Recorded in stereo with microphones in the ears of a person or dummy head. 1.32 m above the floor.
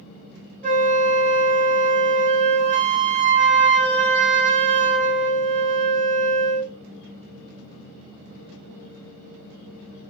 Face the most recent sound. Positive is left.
turn(degrees=-30)  # may be behind; listen again after turning